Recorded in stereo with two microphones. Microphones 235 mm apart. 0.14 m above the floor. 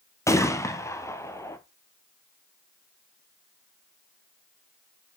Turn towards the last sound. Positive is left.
turn(degrees=10)  # may be behind; listen again after turning